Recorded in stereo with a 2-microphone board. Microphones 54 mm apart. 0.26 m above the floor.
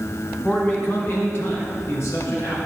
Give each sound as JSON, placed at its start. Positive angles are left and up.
{"t": 0.4, "sound": "a man speaking", "side_deg": 35, "distance_m": 1.9}